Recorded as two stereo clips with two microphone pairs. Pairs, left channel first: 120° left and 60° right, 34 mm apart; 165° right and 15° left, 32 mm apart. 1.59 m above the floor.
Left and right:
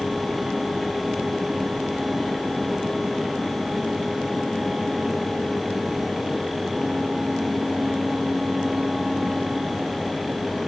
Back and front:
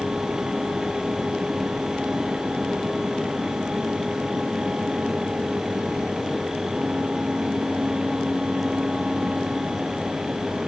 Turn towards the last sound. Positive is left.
No sound to turn to.